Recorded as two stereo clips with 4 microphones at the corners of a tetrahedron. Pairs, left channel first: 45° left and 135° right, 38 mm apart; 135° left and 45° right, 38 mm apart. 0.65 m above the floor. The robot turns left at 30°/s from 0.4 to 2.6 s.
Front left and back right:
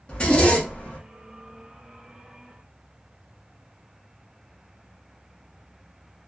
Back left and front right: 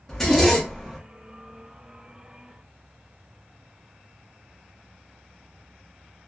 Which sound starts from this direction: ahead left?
A zipper, at 0.1 s.